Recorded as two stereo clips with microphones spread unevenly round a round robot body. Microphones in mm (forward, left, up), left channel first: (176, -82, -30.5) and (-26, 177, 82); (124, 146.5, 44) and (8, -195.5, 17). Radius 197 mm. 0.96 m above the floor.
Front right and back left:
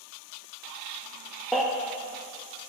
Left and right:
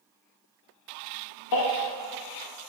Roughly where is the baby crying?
Ahead left.